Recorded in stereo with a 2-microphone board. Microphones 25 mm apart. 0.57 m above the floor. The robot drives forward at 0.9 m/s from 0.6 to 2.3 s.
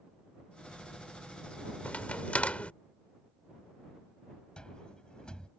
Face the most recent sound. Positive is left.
turn(degrees=35)  # may be behind; listen again after turning